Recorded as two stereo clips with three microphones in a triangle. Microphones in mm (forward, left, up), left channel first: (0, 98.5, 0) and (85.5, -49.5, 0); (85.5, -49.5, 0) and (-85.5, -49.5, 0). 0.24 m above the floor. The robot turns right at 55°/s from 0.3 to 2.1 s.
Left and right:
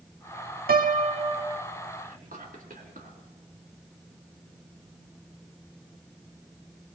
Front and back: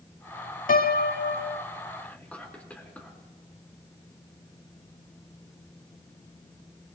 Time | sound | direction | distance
0.7 | a piano | 35° right | 0.5 m
2.0 | whispering | 85° right | 2.5 m